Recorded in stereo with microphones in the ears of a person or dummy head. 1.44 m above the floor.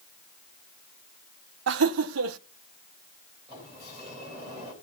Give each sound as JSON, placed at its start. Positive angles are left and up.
{"t": 1.7, "sound": "laughter", "side_deg": -75, "distance_m": 0.7}
{"t": 3.5, "sound": "a sliding door", "side_deg": -25, "distance_m": 3.5}